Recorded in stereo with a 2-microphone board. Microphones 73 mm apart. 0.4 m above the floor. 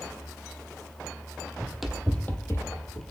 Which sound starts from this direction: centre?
Running footsteps, at 1.6 s.